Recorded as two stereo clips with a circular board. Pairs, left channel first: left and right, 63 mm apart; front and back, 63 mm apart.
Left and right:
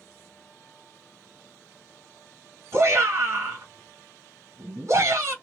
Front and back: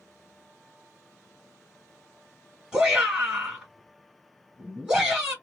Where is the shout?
115° right, 2 m.